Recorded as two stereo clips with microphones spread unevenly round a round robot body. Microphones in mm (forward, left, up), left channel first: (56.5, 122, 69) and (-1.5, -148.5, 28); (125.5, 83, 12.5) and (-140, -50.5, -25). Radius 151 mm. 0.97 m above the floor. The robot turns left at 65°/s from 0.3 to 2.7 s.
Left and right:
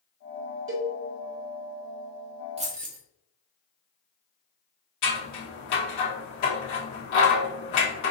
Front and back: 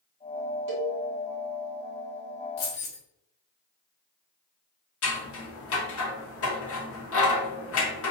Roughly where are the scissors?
Left.